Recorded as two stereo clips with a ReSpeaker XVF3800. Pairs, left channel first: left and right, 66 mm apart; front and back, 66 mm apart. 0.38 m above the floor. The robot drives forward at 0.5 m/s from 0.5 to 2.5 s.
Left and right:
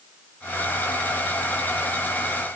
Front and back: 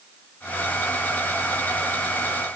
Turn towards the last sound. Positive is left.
No sound to turn to.